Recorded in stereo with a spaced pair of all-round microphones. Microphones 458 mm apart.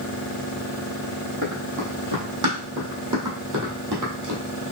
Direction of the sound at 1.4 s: 40° right (ahead or behind).